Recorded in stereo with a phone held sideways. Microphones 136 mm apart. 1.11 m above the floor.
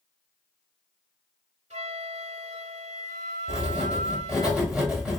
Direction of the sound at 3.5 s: 5° right (ahead or behind).